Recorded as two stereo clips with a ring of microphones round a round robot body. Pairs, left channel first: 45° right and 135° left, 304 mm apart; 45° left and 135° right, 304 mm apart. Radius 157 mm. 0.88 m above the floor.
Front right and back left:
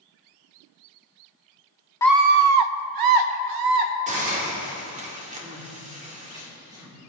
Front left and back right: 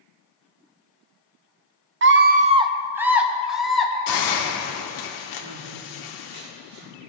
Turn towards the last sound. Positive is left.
turn(degrees=-145)